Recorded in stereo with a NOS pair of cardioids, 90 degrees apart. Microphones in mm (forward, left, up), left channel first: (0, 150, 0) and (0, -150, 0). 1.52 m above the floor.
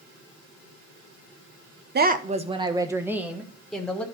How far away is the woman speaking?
About 1.0 m.